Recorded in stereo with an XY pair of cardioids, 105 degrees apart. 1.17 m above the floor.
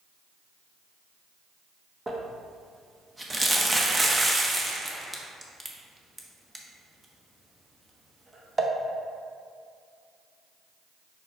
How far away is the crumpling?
About 1.0 m.